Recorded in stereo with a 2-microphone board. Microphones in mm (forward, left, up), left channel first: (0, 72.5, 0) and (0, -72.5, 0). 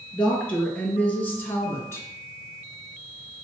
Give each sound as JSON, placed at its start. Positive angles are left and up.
{"t": 0.1, "sound": "a woman speaking", "side_deg": 5, "distance_m": 3.0}